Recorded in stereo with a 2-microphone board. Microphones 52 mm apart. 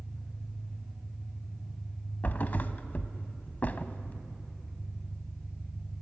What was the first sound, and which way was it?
An engine running, 5° right (ahead or behind).